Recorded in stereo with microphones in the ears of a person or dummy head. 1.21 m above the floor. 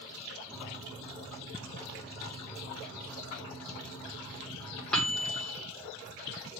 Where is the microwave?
5° left (ahead or behind), 1.3 m.